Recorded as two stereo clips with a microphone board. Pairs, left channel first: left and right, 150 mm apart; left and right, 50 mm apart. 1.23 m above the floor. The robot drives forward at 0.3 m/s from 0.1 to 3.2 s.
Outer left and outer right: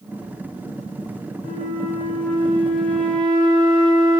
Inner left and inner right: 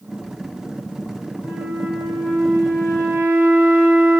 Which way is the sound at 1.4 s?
85° right.